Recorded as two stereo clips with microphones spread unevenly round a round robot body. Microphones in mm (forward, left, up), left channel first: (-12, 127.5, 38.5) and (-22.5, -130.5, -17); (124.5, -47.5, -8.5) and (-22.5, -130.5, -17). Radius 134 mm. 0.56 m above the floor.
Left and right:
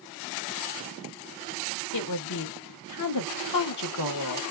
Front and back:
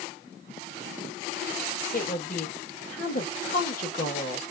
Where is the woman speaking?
75° left, 1.1 m.